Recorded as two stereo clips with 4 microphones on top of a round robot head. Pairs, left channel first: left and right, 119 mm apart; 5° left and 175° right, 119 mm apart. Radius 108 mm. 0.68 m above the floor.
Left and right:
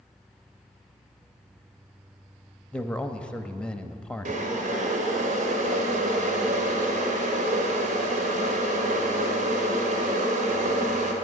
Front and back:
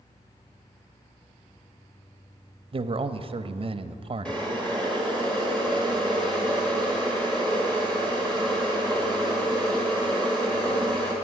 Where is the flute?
I don't hear a flute.